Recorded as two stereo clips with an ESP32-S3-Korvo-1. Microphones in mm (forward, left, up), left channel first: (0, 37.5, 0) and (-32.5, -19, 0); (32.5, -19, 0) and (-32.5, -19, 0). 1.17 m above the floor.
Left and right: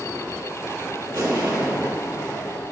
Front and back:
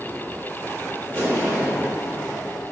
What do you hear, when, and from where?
1.1 s an explosion: 120° right, 1.8 m